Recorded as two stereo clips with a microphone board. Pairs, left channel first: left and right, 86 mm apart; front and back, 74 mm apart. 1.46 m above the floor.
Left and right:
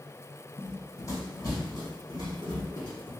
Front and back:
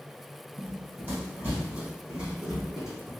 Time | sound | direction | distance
0.6 | running footsteps | 135° left | 2 m